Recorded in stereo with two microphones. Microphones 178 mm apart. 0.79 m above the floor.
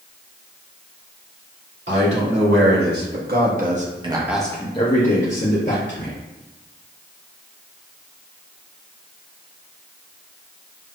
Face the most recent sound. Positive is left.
turn(degrees=65)  # may be behind; listen again after turning